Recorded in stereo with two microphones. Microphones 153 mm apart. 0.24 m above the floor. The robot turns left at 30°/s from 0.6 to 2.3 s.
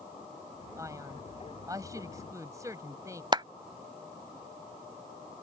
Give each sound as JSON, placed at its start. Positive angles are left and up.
{"t": 0.8, "sound": "a man speaking", "side_deg": -20}
{"t": 3.3, "sound": "a clap", "side_deg": -30}